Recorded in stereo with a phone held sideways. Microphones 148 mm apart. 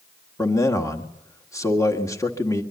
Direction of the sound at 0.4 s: 20° left (ahead or behind).